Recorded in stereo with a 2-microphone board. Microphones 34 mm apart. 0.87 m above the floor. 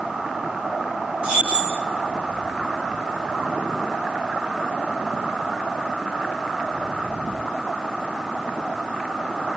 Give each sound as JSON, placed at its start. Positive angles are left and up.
{"t": 1.2, "sound": "keys jangling", "side_deg": -35, "distance_m": 2.0}